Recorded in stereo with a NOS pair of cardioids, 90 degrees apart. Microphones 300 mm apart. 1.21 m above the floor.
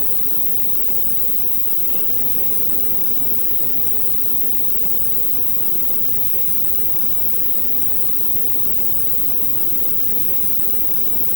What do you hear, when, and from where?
0.0 s an insect: 40° left, 2.5 m